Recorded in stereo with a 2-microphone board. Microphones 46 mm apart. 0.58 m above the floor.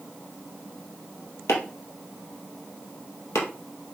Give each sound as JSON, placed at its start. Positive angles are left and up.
{"t": 1.5, "sound": "chopping", "side_deg": 75, "distance_m": 2.5}